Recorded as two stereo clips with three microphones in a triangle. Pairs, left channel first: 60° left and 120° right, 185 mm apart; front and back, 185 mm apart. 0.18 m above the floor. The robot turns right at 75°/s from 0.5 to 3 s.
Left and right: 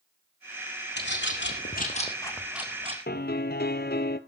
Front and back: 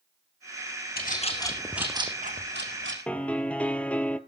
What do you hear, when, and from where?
1.0 s a bird: 35° left, 1.8 m; by 3.0 s 175° right, 1.8 m
3.1 s a piano: 85° left, 0.8 m